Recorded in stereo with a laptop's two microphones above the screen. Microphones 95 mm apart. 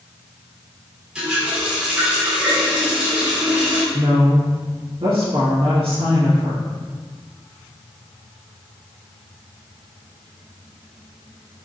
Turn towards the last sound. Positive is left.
turn(degrees=-65)  # may be behind; listen again after turning